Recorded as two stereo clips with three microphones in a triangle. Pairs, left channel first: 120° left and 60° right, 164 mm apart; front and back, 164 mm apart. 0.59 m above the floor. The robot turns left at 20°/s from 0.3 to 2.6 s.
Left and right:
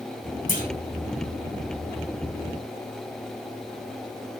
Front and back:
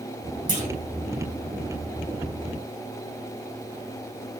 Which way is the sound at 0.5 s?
145° left.